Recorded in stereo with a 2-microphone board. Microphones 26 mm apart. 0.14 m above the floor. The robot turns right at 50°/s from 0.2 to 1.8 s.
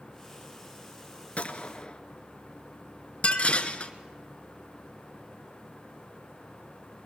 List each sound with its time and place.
1.4 s a gunshot: 50° left (ahead or behind), 1.1 m; by 2.0 s 40° left (ahead or behind), 1.1 m
3.2 s dishes clattering: 45° left (ahead or behind), 1.3 m